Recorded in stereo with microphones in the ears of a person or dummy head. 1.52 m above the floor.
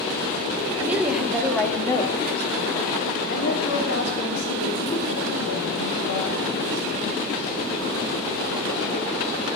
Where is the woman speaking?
15° right (ahead or behind), 2.5 m; by 7.5 s 85° left, 7.5 m.